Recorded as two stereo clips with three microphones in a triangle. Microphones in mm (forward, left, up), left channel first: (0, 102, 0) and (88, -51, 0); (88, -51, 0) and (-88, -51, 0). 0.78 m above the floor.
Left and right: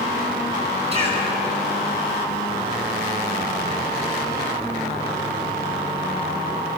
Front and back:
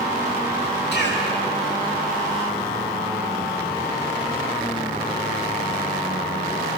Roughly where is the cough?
Ahead.